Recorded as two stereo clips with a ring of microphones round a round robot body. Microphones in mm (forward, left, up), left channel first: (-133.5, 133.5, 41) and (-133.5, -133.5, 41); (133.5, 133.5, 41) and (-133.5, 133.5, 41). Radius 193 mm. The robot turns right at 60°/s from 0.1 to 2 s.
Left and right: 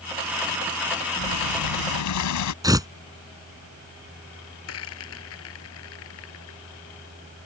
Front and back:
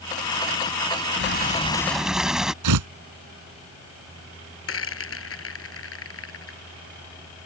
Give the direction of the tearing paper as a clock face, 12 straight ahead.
6 o'clock.